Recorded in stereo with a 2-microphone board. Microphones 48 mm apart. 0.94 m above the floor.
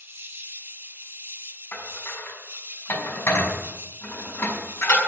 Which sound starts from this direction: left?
Dishes clattering, at 1.7 s.